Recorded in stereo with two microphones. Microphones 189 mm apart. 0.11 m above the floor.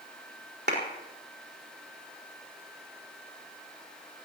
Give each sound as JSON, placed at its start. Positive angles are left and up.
{"t": 0.7, "sound": "a clap", "side_deg": -65, "distance_m": 5.0}